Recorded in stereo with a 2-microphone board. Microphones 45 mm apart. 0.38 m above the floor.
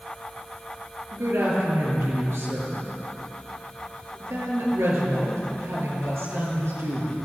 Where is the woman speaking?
80° right, 7.5 m.